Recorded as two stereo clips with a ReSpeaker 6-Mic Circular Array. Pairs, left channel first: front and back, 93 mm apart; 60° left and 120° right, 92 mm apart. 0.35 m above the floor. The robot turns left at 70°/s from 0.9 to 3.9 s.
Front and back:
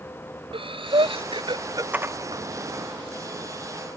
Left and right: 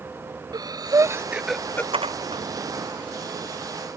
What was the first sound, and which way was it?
Breathing, 165° right.